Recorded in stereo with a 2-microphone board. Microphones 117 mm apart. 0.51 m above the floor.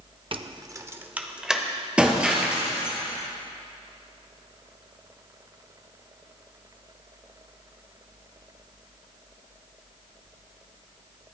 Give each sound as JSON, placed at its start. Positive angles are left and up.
{"t": 0.3, "sound": "keys jangling", "side_deg": -50, "distance_m": 0.5}
{"t": 2.0, "sound": "breaking glass", "side_deg": -10, "distance_m": 2.5}